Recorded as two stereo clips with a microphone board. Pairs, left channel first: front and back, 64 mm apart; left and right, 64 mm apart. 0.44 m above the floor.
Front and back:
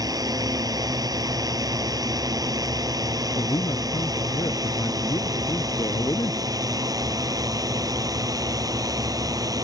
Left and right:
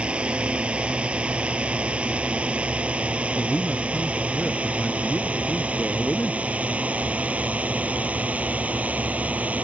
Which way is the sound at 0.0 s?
160° right.